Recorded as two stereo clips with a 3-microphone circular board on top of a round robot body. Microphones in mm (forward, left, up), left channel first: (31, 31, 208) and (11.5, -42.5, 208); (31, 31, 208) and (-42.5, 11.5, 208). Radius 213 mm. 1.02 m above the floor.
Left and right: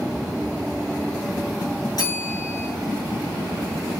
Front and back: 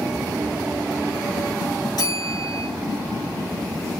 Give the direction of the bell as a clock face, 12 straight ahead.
11 o'clock.